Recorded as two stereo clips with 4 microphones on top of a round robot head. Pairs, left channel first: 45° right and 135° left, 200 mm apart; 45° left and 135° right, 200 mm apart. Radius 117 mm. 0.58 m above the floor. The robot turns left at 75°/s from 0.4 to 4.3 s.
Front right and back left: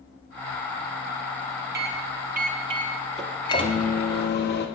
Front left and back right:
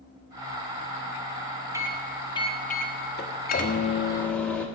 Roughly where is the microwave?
Behind left.